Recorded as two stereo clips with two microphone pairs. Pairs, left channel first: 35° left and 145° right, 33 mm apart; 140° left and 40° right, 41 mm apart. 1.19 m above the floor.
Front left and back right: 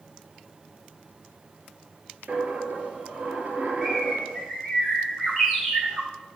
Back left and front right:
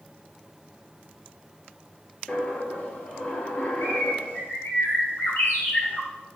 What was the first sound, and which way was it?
A dropped coin, 175° right.